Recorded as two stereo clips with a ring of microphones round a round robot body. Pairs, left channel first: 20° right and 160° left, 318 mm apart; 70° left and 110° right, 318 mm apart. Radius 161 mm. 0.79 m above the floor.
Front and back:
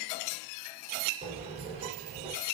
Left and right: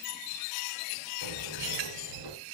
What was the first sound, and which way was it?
A sliding door, 130° right.